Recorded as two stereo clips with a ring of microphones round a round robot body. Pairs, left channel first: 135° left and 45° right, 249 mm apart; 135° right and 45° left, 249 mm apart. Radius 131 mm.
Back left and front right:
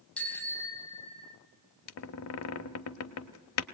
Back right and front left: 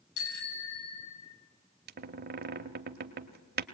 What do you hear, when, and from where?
0.2 s a bicycle bell: 140° right, 3 m; by 1.4 s 160° right, 3 m
1.9 s a squeak: 100° left, 0.9 m